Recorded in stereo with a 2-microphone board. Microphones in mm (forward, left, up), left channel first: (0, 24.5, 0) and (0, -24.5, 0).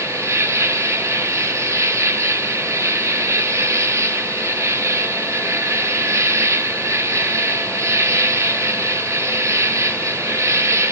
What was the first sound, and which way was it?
An insect, 70° right (ahead or behind).